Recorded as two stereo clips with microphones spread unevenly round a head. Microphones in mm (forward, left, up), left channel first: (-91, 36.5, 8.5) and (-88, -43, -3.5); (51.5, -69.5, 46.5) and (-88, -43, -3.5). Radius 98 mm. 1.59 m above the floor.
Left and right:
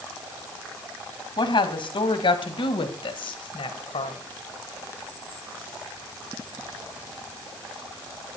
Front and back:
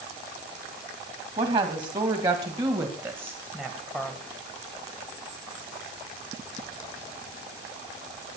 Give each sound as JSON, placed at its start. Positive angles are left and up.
{"t": 1.4, "sound": "a woman speaking", "azimuth_deg": 110, "distance_m": 2.5}